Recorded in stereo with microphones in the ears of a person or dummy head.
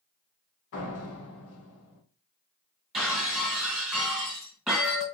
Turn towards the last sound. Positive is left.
turn(degrees=0)  # may be behind; listen again after turning